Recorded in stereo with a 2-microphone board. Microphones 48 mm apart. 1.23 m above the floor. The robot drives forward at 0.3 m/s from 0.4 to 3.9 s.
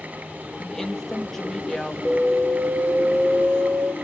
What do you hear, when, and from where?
0.6 s a woman speaking: 10° left (ahead or behind), 1.7 m
2.0 s an alarm: 40° right (ahead or behind), 1.5 m; by 3.9 s 55° right (ahead or behind), 1.2 m